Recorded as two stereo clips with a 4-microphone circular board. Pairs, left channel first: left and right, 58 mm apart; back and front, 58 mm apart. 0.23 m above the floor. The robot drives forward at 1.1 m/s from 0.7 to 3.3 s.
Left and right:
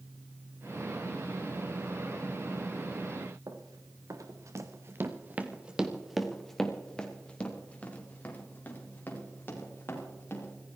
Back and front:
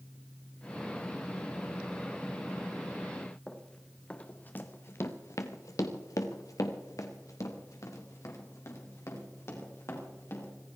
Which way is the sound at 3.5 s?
100° right.